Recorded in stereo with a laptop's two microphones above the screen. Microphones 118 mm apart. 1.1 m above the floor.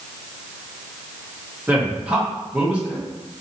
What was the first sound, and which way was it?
A man speaking, 10° right (ahead or behind).